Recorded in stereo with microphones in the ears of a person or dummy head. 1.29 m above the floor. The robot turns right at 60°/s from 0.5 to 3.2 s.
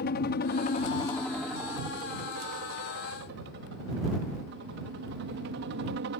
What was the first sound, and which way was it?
A helicopter, 120° left.